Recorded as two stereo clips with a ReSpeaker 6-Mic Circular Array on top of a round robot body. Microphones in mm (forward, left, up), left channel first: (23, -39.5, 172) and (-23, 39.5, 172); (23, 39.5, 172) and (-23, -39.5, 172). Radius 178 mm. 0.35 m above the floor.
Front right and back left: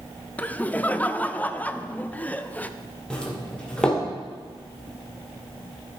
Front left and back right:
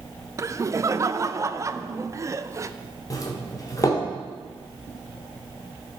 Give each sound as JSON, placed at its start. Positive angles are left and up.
{"t": 0.4, "sound": "laughter", "azimuth_deg": -120, "distance_m": 0.9}
{"t": 3.1, "sound": "a doorbell", "azimuth_deg": 20, "distance_m": 2.5}